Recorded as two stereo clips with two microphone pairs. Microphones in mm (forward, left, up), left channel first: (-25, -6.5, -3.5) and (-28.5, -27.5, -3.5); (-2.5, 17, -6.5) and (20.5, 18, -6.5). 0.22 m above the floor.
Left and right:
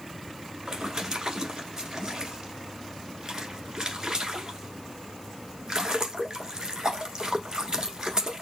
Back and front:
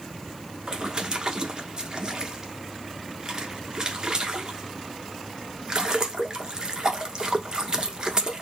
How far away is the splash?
About 1.1 m.